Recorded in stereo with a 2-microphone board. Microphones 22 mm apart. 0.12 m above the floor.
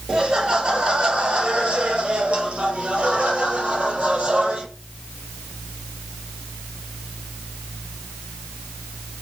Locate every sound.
0.1 s laughter: 45° right (ahead or behind), 2 m; by 4.7 s 55° right (ahead or behind), 3.5 m